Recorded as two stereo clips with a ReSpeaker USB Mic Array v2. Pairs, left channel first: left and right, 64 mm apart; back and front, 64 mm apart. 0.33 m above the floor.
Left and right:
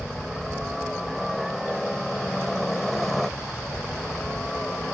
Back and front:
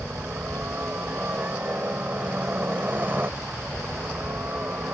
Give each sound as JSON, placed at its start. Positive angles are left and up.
{"t": 0.0, "sound": "a helicopter", "azimuth_deg": -10}